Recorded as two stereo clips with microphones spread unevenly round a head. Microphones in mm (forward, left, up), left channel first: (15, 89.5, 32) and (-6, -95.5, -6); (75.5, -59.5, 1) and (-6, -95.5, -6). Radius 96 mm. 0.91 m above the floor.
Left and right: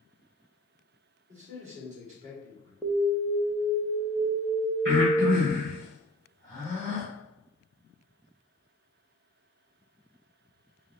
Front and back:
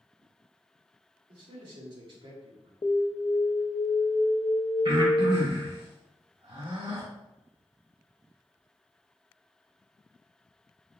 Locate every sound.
1.3 s a man speaking: 145° right, 1.9 m
2.8 s an alarm: 20° right, 0.5 m
4.8 s breathing: 145° right, 2 m